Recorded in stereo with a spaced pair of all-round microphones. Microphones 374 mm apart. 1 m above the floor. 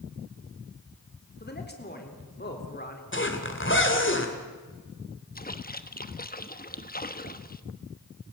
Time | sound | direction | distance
1.4 | a man speaking | 25° left (ahead or behind) | 4 m
3.1 | a zipper | 30° left (ahead or behind) | 2.5 m
5.3 | a splash | 25° left (ahead or behind) | 1.0 m